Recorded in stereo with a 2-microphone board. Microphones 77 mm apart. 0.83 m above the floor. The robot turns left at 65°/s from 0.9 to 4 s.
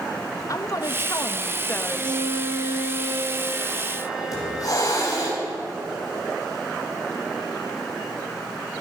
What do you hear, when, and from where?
0.5 s a woman speaking: 95° left, 0.8 m; by 2.3 s 5° left, 0.8 m
1.9 s a violin: 40° right, 2.5 m; by 5.3 s 175° right, 2.5 m
4.3 s a hiss: 50° left (ahead or behind), 5 m